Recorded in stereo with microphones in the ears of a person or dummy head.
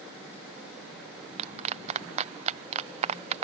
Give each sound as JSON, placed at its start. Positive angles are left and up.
{"t": 1.4, "sound": "a clap", "side_deg": -35}